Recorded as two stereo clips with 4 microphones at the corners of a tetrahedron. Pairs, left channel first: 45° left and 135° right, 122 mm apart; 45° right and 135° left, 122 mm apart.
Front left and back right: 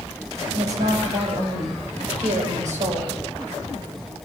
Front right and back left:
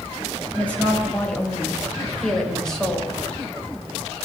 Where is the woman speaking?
125° right, 7.5 m; by 3.1 s 135° right, 5.5 m.